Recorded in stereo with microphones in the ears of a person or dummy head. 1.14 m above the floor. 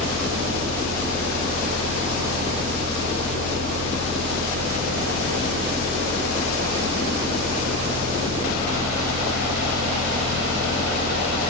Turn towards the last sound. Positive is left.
turn(degrees=-50)  # may be behind; listen again after turning